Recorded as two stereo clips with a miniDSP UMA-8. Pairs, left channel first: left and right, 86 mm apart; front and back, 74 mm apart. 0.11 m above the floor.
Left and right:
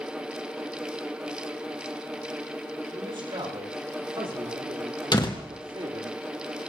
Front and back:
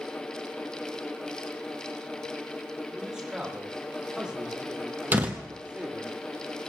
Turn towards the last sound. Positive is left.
turn(degrees=115)